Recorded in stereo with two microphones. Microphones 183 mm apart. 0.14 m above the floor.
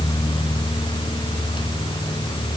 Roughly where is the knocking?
I don't hear knocking.